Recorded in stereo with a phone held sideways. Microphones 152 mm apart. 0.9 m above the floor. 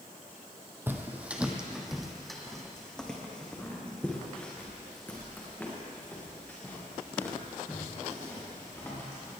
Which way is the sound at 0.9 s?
15° right (ahead or behind).